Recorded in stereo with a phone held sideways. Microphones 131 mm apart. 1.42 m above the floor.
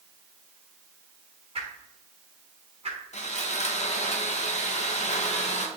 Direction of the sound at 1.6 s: 50° right (ahead or behind).